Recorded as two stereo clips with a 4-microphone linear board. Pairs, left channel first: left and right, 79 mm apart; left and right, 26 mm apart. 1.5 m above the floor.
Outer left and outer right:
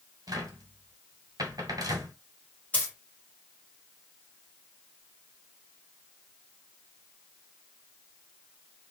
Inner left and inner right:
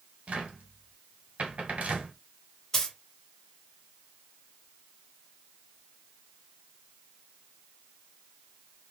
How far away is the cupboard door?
About 1.5 m.